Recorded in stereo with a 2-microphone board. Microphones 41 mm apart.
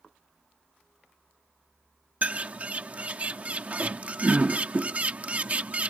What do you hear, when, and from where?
2.2 s a bird: 35° right (ahead or behind)